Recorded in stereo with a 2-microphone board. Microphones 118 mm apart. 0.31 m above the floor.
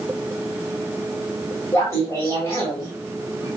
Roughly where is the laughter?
Left.